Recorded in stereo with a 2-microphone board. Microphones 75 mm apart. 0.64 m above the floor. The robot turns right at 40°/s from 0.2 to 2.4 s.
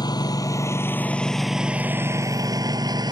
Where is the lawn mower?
65° left (ahead or behind); by 3.1 s 70° right (ahead or behind).